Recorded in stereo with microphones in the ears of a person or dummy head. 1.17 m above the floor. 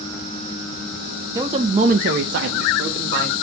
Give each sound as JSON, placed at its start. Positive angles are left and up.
{"t": 1.4, "sound": "a man speaking", "side_deg": -15, "distance_m": 0.5}